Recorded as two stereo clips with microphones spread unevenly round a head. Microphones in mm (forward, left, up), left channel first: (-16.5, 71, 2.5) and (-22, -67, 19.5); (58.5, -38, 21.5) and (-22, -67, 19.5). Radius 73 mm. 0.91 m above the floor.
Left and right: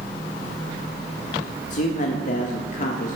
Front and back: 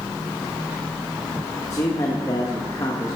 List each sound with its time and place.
1.7 s a man speaking: 75° left, 1.1 m